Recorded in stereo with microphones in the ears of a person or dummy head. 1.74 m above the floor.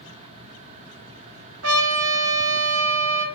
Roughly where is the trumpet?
Right.